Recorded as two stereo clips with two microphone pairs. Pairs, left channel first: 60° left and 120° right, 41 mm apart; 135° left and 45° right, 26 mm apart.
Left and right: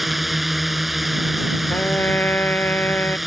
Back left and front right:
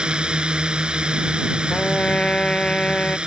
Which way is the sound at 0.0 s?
30° right.